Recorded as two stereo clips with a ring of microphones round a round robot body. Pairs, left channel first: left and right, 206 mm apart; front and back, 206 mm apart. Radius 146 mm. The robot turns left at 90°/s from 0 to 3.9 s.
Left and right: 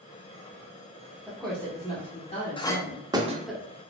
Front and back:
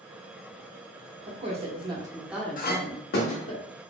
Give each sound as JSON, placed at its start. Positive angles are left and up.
{"t": 1.3, "sound": "a woman speaking", "azimuth_deg": -165, "distance_m": 0.9}
{"t": 2.6, "sound": "a clink", "azimuth_deg": 30, "distance_m": 0.5}